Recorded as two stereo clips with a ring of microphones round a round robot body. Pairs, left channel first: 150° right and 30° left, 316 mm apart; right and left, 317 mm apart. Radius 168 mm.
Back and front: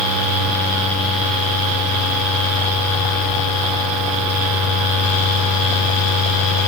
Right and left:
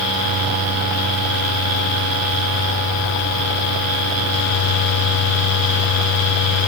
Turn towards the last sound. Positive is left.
No sound to turn to.